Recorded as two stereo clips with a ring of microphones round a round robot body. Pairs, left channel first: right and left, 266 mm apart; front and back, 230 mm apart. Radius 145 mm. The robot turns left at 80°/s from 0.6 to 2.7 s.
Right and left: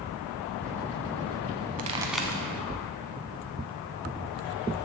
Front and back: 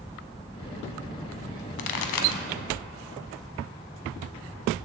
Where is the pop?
30° left, 0.5 m; by 2.4 s 20° right, 0.5 m.